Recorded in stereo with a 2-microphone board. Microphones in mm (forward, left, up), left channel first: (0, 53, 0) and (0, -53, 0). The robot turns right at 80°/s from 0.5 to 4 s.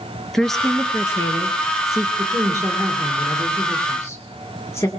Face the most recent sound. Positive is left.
turn(degrees=50)